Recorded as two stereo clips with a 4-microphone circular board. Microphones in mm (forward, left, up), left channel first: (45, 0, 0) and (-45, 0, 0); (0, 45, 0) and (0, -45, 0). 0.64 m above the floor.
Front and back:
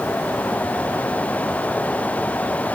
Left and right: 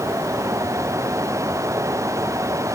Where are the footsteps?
I don't hear footsteps.